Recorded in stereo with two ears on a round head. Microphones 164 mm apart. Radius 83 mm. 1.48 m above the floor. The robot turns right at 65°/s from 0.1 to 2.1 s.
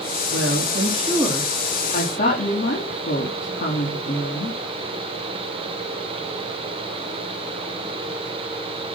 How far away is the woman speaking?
About 3.5 m.